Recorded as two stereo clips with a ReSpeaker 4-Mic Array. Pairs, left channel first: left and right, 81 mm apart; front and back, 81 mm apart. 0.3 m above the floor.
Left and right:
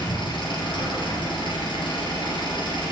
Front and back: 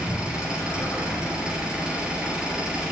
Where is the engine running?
100° left, 3 m.